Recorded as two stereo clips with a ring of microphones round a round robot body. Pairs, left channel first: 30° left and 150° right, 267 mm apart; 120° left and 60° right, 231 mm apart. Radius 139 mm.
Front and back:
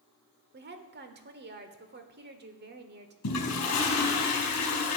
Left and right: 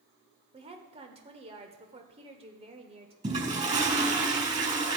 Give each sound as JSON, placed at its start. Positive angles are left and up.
{"t": 0.5, "sound": "a woman speaking", "azimuth_deg": -115, "distance_m": 1.1}
{"t": 3.2, "sound": "a toilet flushing", "azimuth_deg": -5, "distance_m": 4.0}